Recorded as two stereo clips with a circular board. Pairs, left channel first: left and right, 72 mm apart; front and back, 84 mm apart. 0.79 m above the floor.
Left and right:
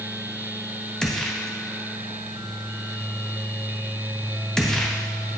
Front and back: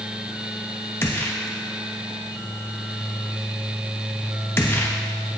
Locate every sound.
1.0 s a gunshot: 20° left, 0.9 m